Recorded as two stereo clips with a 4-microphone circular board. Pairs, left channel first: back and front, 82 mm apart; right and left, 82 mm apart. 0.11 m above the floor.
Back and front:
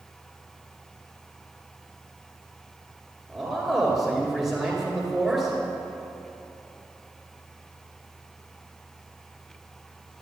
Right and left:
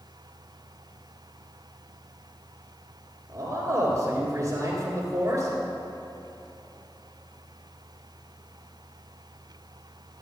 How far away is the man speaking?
About 2.5 m.